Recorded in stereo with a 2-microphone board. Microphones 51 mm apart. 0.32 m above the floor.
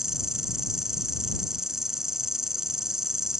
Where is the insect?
10° right (ahead or behind).